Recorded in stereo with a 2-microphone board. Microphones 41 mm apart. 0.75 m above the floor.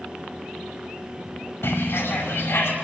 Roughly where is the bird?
Left.